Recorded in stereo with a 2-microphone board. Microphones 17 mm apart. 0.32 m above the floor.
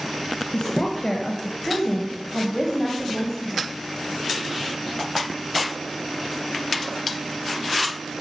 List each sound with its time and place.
0.5 s a woman speaking: 35° left (ahead or behind), 1.3 m; by 3.7 s 15° right (ahead or behind), 1.9 m